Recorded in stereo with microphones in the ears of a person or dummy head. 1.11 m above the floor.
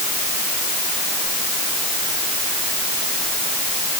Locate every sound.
Only background noise.